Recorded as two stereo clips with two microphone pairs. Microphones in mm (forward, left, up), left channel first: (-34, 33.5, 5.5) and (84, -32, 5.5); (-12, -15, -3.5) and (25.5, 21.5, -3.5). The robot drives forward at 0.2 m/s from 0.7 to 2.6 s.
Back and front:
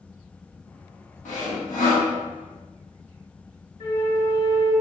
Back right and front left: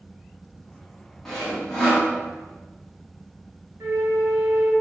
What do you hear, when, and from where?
1.2 s sawing: 145° left, 0.9 m; by 2.1 s 150° left, 1.0 m
3.8 s a flute: 80° left, 1.3 m